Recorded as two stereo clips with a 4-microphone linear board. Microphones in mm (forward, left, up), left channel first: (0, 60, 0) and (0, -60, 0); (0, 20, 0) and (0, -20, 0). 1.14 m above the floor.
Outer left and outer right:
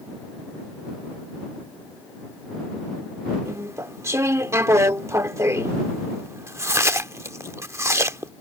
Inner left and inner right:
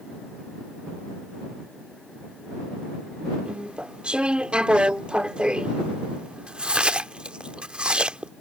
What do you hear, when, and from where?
3.5 s chewing: 25° right (ahead or behind)